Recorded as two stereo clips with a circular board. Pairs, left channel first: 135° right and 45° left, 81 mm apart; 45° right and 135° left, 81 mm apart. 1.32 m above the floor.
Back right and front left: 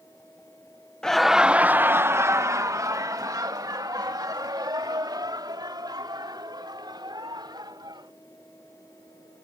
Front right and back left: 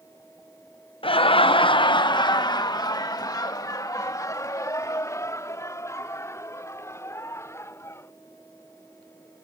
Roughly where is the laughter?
Ahead right.